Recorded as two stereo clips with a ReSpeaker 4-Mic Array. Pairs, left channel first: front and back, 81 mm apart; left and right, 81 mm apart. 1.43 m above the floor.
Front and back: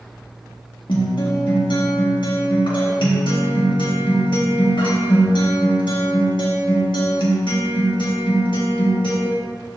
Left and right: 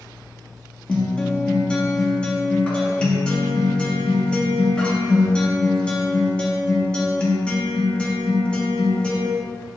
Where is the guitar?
10° left, 1.5 m.